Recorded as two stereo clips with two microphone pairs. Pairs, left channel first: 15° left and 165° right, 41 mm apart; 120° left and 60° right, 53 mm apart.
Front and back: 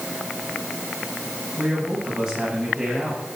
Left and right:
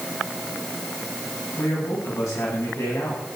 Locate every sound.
1.6 s a man speaking: 120° left, 8.5 m; by 3.4 s 115° left, 8 m